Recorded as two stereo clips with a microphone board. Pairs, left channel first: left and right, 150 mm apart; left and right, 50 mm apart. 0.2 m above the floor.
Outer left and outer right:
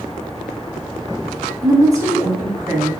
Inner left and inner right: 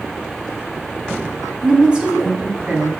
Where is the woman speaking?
20° right (ahead or behind), 1.0 m.